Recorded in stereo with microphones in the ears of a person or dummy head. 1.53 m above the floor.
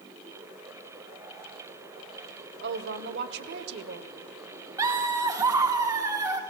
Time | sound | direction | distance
2.6 | a woman speaking | 65° right (ahead or behind) | 0.9 m
4.8 | laughter | 15° right (ahead or behind) | 1.1 m